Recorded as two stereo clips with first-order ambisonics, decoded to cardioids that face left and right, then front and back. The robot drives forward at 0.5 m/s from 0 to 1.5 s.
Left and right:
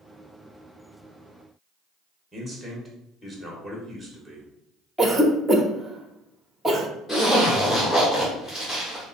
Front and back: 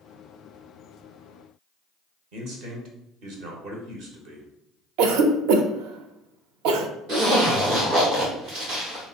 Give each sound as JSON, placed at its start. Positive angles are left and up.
{"t": 2.3, "sound": "a man speaking", "azimuth_deg": 180, "distance_m": 0.9}
{"t": 5.0, "sound": "a cough", "azimuth_deg": -170, "distance_m": 0.5}
{"t": 7.1, "sound": "a zipper", "azimuth_deg": 160, "distance_m": 1.4}